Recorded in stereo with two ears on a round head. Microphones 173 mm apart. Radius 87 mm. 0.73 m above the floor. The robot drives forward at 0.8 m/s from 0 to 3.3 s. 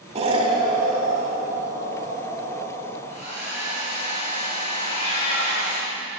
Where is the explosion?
35° right (ahead or behind), 0.8 m; by 3.0 s 10° right (ahead or behind), 3 m.